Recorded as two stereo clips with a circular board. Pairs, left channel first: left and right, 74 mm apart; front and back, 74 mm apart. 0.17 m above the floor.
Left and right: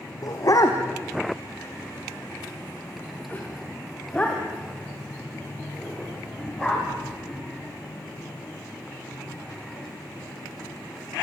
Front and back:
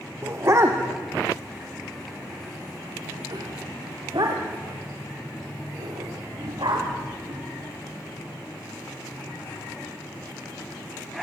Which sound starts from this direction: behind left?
A dog barking, at 0.2 s.